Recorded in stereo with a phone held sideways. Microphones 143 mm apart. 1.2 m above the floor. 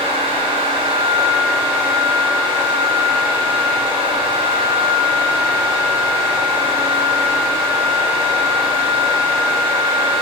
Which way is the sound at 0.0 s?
35° right (ahead or behind).